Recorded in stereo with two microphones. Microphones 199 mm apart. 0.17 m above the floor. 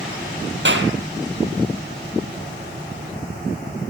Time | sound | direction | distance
0.7 | a clap | 70° right (ahead or behind) | 3.5 m